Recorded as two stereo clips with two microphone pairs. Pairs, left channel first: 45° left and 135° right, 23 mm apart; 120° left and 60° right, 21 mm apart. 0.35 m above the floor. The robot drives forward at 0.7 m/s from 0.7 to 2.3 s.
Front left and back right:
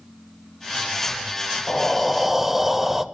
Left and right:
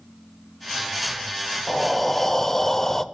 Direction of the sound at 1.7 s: 15° left.